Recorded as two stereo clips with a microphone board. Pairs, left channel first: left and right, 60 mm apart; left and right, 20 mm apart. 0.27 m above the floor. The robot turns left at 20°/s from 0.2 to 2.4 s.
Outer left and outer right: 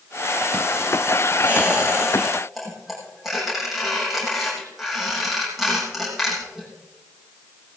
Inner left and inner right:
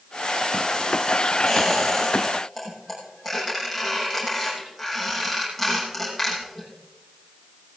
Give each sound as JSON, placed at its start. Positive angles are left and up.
{"t": 1.5, "sound": "a squeak", "side_deg": -20, "distance_m": 6.5}